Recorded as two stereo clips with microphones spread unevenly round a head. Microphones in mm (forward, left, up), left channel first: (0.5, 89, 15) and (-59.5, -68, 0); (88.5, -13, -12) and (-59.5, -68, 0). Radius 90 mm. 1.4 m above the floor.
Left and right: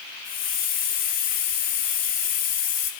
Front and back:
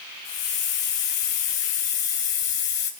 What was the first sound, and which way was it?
A hiss, 30° left.